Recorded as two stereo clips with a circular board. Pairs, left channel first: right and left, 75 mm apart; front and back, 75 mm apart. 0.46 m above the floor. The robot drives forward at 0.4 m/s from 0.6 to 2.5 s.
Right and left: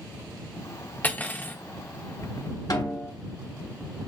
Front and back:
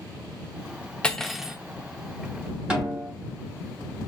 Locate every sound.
1.0 s cutlery clinking: 60° right, 0.5 m; by 1.6 s 115° right, 0.5 m
2.7 s a snare drum: 105° right, 1.7 m